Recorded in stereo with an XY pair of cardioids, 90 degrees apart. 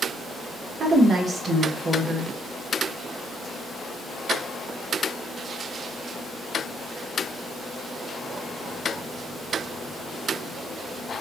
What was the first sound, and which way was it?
A woman speaking, 50° right.